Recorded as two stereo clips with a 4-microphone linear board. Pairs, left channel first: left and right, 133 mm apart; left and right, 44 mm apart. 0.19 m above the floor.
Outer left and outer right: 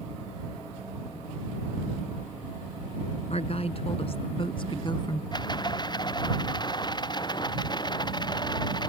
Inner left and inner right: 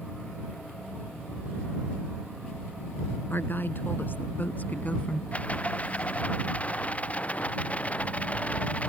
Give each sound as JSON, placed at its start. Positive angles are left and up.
{"t": 3.3, "sound": "a woman speaking", "side_deg": 55}
{"t": 5.3, "sound": "a rattle", "side_deg": 35}